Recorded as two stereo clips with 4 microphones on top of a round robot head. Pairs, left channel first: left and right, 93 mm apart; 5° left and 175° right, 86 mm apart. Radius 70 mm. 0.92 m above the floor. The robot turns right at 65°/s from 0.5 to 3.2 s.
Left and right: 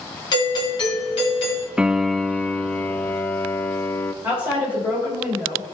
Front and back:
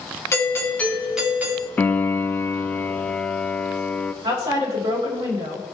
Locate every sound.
0.3 s a doorbell: 60° left, 3 m; by 1.7 s 135° left, 3 m
1.8 s a piano: 25° right, 0.5 m; by 4.1 s 70° left, 0.5 m
4.2 s a woman speaking: 160° right, 4.5 m